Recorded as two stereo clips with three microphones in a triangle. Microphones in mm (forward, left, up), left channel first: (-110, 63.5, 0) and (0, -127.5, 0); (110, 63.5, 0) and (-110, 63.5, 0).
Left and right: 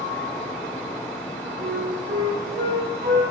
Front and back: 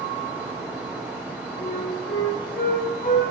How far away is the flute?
About 1.1 m.